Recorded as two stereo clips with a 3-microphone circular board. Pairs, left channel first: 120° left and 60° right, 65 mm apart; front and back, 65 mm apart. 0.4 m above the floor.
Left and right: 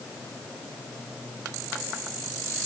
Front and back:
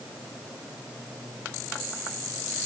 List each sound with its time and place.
Only background noise.